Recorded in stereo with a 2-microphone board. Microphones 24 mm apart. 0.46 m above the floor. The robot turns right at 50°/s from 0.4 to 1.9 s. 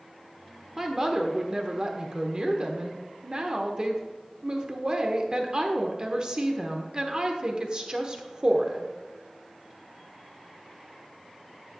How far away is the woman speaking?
About 1.0 m.